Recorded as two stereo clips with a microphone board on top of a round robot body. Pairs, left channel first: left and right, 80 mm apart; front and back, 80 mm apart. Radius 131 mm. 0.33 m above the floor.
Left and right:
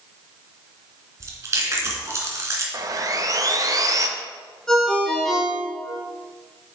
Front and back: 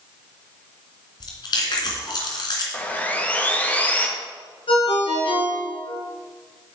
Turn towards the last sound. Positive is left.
turn(degrees=5)